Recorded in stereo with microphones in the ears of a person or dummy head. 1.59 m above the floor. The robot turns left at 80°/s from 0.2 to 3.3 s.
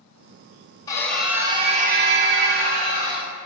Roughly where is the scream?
Ahead left.